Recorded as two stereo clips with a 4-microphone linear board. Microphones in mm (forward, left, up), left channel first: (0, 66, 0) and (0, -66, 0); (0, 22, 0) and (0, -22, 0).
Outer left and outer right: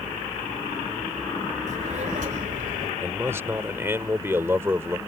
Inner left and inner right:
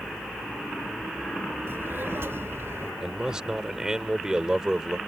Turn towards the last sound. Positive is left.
turn(degrees=-20)  # may be behind; listen again after turning